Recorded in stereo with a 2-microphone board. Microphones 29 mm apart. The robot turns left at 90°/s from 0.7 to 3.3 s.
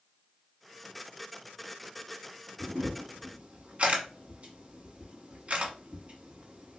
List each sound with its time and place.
2.6 s a camera shutter: 60° right (ahead or behind), 0.9 m; by 6.8 s 50° right (ahead or behind), 0.9 m